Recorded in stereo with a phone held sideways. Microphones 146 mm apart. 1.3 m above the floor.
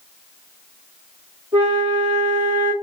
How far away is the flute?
About 4 m.